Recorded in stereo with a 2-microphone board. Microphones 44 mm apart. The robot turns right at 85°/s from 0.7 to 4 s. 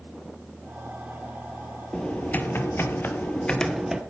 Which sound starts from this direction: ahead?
Typing on a keyboard, at 1.9 s.